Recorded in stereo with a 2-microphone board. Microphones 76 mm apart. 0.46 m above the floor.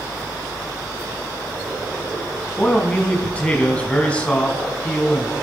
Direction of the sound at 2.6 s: 15° left (ahead or behind).